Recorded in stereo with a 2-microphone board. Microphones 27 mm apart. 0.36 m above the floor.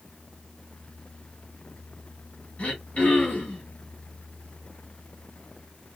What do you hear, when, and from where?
2.6 s throat clearing: 50° left (ahead or behind), 2 m